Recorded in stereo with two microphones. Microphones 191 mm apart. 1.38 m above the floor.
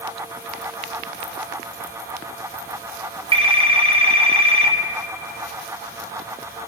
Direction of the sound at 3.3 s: 30° right (ahead or behind).